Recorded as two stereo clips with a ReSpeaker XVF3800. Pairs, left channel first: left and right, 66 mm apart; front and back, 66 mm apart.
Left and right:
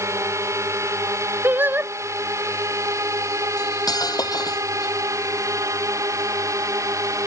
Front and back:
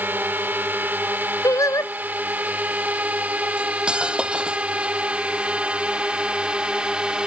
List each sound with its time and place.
0.0 s a drone: 125° right; by 7.3 s 105° right
1.4 s singing: 30° right
3.6 s cutlery clinking: 105° left